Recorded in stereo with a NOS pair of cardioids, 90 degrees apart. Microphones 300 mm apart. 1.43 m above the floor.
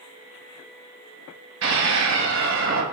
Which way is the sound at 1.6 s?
65° right.